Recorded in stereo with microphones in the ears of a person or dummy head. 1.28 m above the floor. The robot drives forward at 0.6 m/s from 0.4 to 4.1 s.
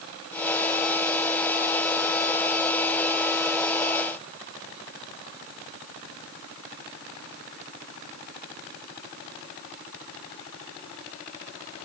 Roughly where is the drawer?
I don't hear a drawer.